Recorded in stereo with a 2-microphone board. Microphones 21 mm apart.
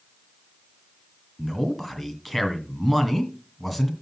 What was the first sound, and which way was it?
A man speaking, 5° right (ahead or behind).